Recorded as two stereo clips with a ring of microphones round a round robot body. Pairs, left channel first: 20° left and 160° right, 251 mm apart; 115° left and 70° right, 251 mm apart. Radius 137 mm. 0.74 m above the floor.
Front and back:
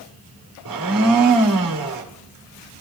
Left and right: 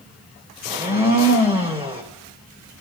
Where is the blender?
135° right, 2.5 m.